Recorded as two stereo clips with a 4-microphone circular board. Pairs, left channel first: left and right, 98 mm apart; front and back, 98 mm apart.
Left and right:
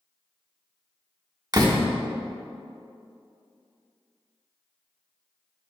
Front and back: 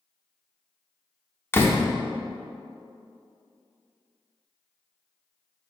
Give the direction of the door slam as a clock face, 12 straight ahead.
2 o'clock.